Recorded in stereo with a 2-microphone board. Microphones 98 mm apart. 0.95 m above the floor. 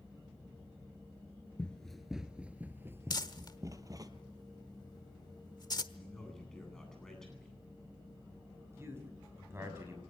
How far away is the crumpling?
About 1.2 m.